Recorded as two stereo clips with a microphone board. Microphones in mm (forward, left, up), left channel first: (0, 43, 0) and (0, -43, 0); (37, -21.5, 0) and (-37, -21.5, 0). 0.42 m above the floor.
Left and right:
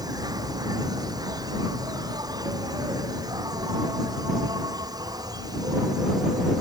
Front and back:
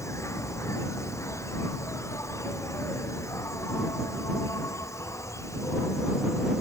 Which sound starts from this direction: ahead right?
An insect, at 0.0 s.